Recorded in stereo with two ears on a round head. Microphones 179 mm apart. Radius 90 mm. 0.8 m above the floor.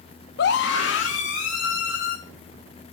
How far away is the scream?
About 0.8 m.